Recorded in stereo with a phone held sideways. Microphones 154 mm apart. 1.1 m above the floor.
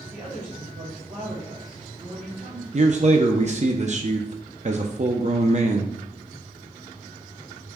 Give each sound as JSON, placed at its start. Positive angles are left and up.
{"t": 0.1, "sound": "a woman speaking", "side_deg": -40, "distance_m": 3.0}
{"t": 2.7, "sound": "a man speaking", "side_deg": -50, "distance_m": 0.6}